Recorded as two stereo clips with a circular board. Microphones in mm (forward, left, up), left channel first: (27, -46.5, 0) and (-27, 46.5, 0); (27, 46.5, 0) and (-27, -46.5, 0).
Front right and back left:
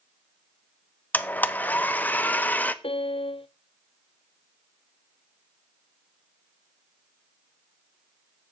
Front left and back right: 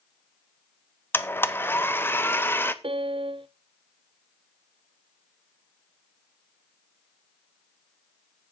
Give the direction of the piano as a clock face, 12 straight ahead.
3 o'clock.